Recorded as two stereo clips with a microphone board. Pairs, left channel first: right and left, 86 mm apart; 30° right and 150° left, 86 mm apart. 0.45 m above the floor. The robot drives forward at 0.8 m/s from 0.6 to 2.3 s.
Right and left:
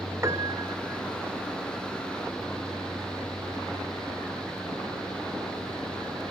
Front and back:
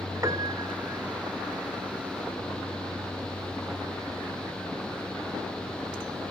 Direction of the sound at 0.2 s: 125° left.